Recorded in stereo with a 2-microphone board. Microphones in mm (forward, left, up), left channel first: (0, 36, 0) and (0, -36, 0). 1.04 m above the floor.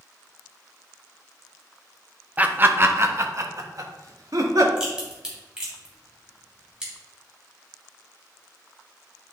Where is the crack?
10° right (ahead or behind), 2.5 m.